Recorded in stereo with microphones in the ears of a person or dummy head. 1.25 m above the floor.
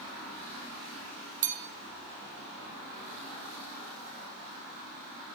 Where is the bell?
40° right (ahead or behind), 1.9 m.